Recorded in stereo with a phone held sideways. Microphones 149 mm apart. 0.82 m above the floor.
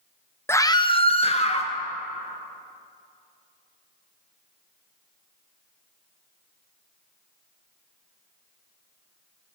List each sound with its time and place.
0.5 s a scream: 15° left (ahead or behind), 0.5 m; by 1.7 s 45° left (ahead or behind), 1.0 m